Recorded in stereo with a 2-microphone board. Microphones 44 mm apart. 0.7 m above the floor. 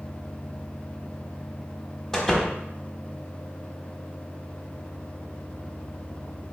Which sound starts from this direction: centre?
A door slam, at 2.1 s.